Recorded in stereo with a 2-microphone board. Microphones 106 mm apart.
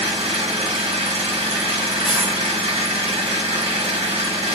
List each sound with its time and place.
0.0 s an engine running: 75° right (ahead or behind), 1.0 m
2.0 s a dropped coin: 5° right (ahead or behind), 2 m